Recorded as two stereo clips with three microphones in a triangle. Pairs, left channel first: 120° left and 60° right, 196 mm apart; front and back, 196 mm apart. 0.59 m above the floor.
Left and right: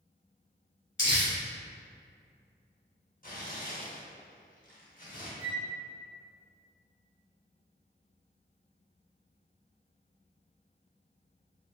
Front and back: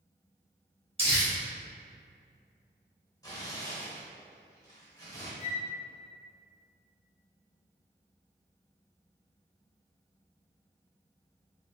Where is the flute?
145° left, 1.3 m.